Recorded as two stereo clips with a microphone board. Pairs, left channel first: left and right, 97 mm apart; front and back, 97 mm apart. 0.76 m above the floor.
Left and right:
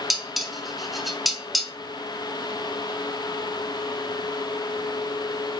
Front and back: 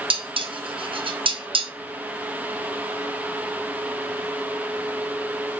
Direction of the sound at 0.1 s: Straight behind.